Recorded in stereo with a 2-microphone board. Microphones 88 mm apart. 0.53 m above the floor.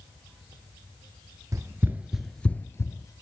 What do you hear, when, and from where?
1.5 s running footsteps: 40° right (ahead or behind), 0.6 m; by 3.1 s 40° left (ahead or behind), 0.7 m